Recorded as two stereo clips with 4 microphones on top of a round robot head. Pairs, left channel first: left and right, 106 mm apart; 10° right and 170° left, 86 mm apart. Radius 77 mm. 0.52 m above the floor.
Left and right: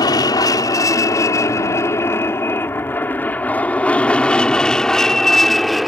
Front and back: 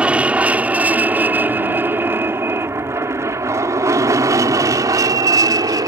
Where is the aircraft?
105° left; by 5.9 s straight behind.